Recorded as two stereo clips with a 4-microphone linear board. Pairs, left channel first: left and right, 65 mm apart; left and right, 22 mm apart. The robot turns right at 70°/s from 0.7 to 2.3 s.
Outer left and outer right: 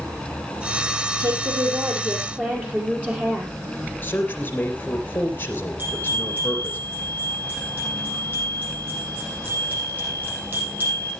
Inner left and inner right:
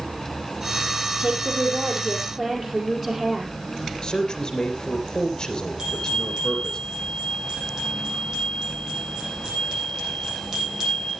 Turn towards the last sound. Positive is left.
turn(degrees=-30)  # may be behind; listen again after turning